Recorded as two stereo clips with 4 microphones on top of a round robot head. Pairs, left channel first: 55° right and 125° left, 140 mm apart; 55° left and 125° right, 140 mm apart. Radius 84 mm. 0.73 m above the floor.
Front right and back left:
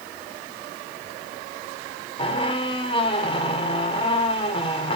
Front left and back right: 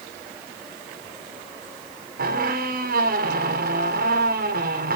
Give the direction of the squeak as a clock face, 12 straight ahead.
4 o'clock.